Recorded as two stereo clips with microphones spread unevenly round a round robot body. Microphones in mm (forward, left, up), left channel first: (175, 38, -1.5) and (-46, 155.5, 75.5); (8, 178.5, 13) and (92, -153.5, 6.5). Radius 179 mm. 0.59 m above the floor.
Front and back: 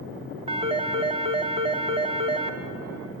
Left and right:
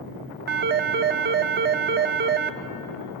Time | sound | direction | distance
0.5 | a phone ringing | 125° right | 0.8 m